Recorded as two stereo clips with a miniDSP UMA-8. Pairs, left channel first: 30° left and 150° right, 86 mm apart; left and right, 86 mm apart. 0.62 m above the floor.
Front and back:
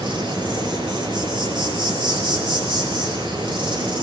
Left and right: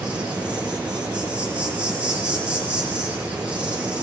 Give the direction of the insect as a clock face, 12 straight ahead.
6 o'clock.